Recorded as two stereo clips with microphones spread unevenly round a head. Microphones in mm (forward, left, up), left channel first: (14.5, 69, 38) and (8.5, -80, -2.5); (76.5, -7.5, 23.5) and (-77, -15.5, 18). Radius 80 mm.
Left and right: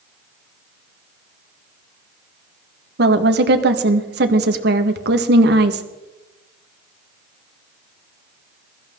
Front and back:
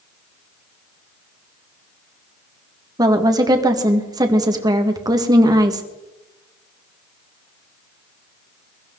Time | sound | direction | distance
3.0 | a woman speaking | 110° right | 1.7 m